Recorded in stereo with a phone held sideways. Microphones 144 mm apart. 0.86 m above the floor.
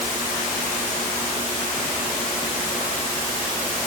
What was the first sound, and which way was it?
Only background noise.